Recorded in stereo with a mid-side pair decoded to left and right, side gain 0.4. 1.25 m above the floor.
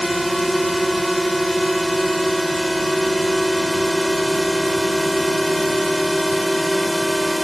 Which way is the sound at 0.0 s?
5° right.